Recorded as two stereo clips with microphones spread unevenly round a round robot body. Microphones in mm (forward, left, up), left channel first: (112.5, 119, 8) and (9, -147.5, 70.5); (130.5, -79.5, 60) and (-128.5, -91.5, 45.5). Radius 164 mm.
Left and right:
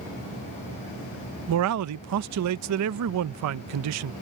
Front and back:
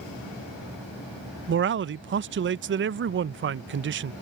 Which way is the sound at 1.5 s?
145° right.